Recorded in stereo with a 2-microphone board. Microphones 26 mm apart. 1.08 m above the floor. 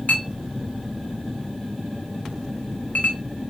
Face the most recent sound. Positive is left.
turn(degrees=60)  # may be behind; listen again after turning